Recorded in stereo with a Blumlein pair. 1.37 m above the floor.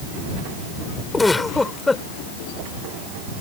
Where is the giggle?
10° left.